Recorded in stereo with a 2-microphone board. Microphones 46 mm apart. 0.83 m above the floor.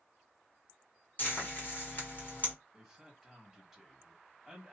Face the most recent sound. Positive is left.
turn(degrees=0)  # may be behind; listen again after turning